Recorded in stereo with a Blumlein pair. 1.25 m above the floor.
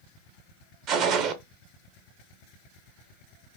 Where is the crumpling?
I don't hear crumpling.